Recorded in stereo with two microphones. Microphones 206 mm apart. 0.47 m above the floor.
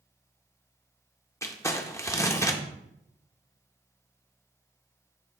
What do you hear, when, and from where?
1.4 s crumpling: 15° left (ahead or behind), 0.7 m